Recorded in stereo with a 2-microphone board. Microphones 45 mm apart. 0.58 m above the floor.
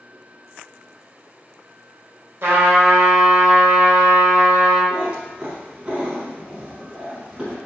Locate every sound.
2.4 s a trumpet: 50° right (ahead or behind), 0.8 m
4.9 s a cat meowing: 15° right (ahead or behind), 0.8 m